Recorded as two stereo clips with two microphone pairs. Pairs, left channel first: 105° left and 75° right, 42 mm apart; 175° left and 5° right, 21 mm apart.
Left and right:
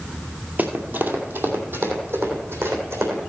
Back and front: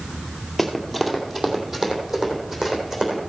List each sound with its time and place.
0.6 s running footsteps: 95° right, 1.5 m; by 3.2 s 75° right, 4 m